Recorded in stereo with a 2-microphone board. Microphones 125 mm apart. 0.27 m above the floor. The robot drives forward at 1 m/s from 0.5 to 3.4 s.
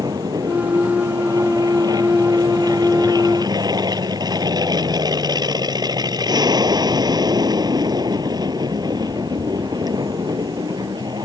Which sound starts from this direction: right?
An aircraft, at 0.0 s.